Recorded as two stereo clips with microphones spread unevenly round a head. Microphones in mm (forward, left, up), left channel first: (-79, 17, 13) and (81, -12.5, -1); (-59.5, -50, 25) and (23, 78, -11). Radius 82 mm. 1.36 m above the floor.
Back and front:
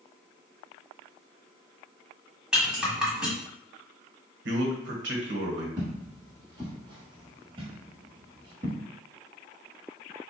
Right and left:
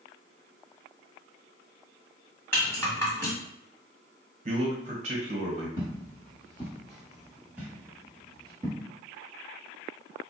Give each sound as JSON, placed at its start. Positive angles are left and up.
{"t": 2.5, "sound": "a rattle", "azimuth_deg": -100, "distance_m": 1.3}
{"t": 4.5, "sound": "a man speaking", "azimuth_deg": 5, "distance_m": 1.2}
{"t": 5.8, "sound": "footsteps", "azimuth_deg": -75, "distance_m": 1.9}